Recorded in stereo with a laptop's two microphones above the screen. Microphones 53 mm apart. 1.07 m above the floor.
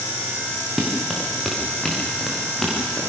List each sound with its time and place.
0.8 s running footsteps: 5° right (ahead or behind), 4 m; by 3.0 s 10° left (ahead or behind), 7 m